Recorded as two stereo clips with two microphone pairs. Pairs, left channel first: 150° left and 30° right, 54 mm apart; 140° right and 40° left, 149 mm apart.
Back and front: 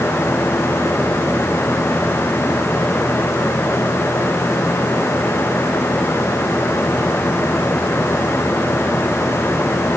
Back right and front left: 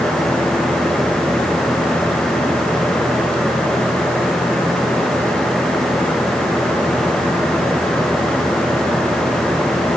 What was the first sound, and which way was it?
Only background noise.